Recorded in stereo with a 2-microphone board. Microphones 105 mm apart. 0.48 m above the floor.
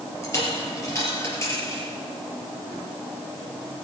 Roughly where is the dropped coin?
Left.